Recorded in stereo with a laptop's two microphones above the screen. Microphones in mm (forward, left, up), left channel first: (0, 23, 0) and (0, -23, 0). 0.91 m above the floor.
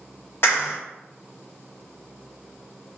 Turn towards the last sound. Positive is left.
turn(degrees=60)  # may be behind; listen again after turning